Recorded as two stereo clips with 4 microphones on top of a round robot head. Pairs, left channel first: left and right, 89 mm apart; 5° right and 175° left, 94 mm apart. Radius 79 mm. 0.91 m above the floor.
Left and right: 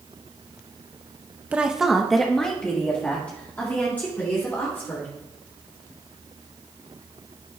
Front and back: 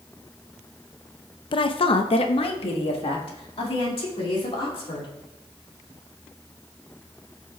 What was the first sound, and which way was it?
A woman speaking, 15° right.